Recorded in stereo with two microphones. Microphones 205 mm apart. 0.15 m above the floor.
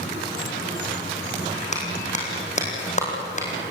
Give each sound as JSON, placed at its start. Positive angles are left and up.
{"t": 1.7, "sound": "a clap", "side_deg": 35, "distance_m": 5.5}